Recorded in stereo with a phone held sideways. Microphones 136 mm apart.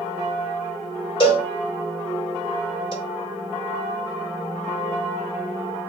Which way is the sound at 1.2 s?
40° left (ahead or behind).